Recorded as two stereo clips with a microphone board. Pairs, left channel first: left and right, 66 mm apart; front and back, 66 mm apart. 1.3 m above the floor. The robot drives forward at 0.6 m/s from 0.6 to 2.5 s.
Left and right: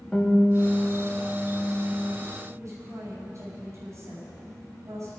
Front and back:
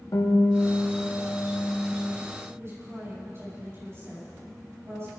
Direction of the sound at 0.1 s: 10° left.